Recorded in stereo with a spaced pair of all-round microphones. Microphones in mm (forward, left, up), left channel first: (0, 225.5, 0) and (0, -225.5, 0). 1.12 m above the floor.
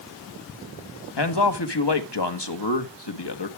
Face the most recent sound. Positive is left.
turn(degrees=60)  # may be behind; listen again after turning